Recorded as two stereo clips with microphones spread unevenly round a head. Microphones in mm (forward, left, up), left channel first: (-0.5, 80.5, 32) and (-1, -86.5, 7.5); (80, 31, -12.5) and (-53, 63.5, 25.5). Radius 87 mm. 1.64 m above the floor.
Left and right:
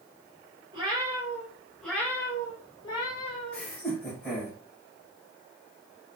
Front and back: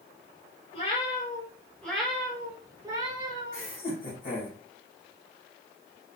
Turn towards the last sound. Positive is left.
turn(degrees=5)